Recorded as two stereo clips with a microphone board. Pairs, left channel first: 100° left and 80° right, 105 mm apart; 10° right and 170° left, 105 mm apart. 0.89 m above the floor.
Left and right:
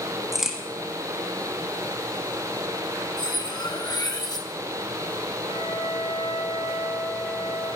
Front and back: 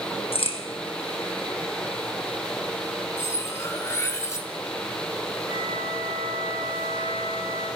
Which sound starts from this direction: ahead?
A crack, at 0.3 s.